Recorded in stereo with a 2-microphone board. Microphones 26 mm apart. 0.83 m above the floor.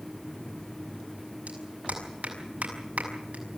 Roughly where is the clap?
Right.